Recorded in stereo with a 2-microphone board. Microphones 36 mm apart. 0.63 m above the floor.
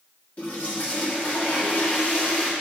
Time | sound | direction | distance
0.4 | a toilet flushing | 40° left (ahead or behind) | 1.4 m